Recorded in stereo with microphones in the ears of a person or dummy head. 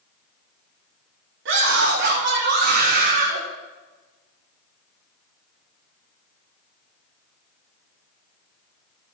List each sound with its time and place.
1.4 s a scream: 70° right (ahead or behind), 3 m; by 3.4 s 40° right (ahead or behind), 2.5 m